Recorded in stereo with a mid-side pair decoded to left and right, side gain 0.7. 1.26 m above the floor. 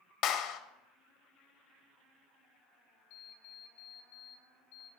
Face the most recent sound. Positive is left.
turn(degrees=70)